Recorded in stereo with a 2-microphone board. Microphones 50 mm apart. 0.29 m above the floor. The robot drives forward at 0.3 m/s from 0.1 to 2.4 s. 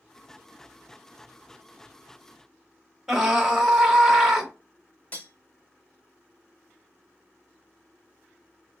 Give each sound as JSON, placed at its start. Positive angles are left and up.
{"t": 3.1, "sound": "a scream", "side_deg": -5, "distance_m": 1.1}
{"t": 5.1, "sound": "cutlery clinking", "side_deg": 30, "distance_m": 0.7}